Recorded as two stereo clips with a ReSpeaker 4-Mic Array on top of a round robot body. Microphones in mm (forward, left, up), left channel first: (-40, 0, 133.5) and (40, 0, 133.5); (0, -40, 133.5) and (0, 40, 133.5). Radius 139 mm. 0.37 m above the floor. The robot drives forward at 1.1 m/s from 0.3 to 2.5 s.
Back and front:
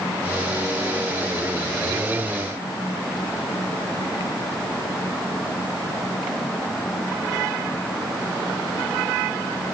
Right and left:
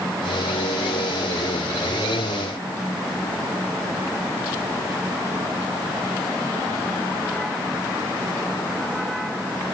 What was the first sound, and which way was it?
Only background noise.